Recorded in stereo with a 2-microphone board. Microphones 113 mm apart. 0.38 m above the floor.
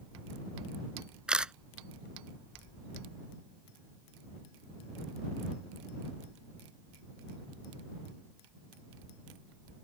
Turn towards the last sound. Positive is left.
turn(degrees=-10)  # may be behind; listen again after turning